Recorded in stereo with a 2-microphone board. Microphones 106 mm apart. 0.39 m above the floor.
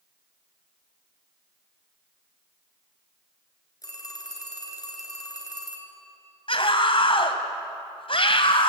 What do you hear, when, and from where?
3.8 s a phone ringing: 35° left (ahead or behind), 3 m
6.5 s a scream: 55° left (ahead or behind), 2.5 m